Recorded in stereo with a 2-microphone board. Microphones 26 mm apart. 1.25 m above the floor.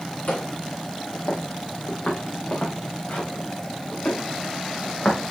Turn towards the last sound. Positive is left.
turn(degrees=55)  # may be behind; listen again after turning